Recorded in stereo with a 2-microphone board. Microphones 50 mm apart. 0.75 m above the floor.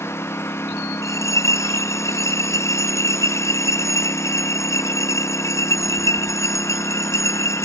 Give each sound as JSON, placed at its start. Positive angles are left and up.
{"t": 0.0, "sound": "a lawn mower", "side_deg": 55}
{"t": 1.0, "sound": "a bell", "side_deg": 75}